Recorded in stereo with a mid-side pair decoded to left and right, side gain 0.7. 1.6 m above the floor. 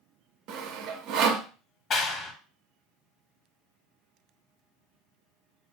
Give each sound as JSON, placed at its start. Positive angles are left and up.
{"t": 0.5, "sound": "sawing", "azimuth_deg": -60, "distance_m": 0.5}
{"t": 1.9, "sound": "a clap", "azimuth_deg": 40, "distance_m": 0.8}